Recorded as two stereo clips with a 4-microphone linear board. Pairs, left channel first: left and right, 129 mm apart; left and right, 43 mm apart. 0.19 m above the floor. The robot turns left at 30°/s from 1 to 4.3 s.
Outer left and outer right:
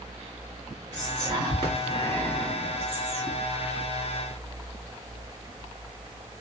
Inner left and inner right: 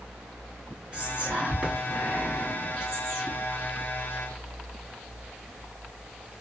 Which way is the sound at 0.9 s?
30° right (ahead or behind).